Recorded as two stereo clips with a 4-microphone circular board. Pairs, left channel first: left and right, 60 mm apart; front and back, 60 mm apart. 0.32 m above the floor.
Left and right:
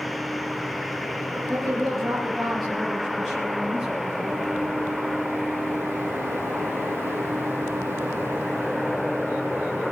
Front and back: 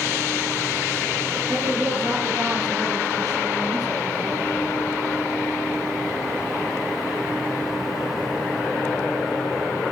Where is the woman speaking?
175° left, 4.5 m; by 4.4 s 175° right, 8 m.